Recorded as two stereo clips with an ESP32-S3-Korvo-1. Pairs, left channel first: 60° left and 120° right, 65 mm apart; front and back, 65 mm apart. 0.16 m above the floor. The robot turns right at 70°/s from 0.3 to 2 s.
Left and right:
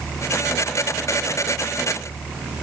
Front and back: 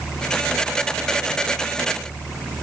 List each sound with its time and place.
Only background noise.